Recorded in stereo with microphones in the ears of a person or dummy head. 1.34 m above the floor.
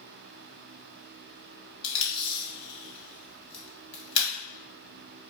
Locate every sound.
1.8 s tape being pulled: 35° left (ahead or behind), 1.1 m